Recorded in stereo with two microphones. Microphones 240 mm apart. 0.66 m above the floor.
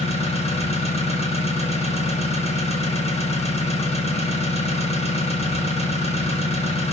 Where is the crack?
No crack in this recording.